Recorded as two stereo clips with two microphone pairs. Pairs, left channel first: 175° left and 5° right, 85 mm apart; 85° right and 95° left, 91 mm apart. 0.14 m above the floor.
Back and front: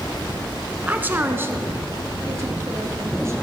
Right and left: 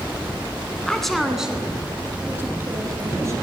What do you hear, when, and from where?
0.9 s a woman speaking: 20° right, 1.0 m; by 3.3 s 45° left, 1.9 m